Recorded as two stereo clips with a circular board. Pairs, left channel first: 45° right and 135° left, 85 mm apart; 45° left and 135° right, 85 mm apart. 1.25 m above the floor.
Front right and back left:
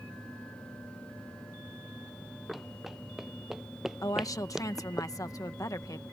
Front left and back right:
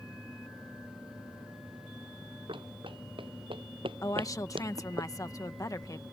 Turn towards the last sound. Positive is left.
turn(degrees=0)